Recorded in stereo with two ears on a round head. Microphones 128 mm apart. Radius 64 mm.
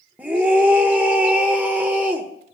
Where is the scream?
10° right (ahead or behind), 1.1 m.